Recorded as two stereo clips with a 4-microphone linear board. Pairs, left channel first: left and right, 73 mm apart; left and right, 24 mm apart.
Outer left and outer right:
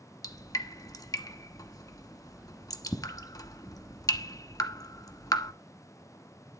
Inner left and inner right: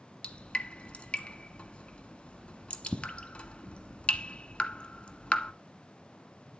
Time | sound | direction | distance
0.2 | dripping | 55° left (ahead or behind) | 1.2 m